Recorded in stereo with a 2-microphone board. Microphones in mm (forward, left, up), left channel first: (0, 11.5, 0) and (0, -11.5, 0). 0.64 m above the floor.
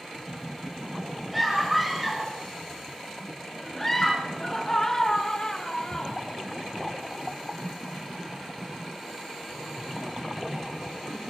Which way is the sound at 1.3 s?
5° right (ahead or behind).